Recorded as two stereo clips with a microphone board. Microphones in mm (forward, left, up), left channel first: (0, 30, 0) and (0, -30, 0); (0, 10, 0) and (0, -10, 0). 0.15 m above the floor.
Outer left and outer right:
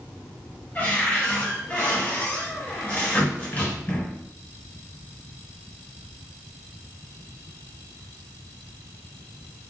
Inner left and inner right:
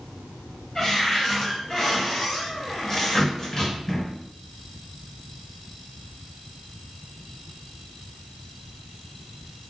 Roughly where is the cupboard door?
Left.